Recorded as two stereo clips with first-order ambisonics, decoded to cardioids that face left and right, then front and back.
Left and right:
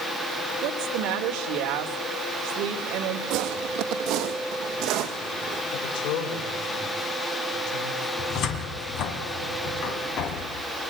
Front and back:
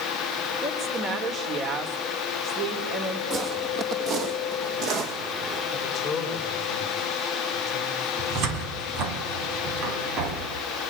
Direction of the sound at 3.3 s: 120° right.